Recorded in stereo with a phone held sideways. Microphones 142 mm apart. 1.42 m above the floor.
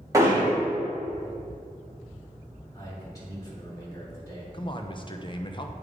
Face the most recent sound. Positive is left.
turn(degrees=35)  # may be behind; listen again after turning